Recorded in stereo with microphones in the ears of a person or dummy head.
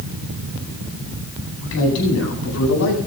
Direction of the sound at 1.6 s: 75° left (ahead or behind).